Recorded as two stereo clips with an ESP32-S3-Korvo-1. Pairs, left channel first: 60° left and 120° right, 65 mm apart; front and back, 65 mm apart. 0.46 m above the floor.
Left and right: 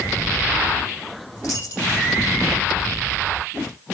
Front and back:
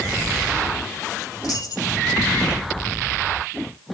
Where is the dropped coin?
20° left, 6.5 m.